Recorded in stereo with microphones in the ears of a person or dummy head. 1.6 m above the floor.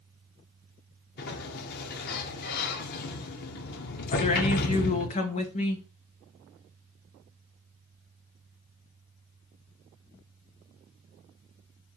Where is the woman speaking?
45° left (ahead or behind), 0.8 m.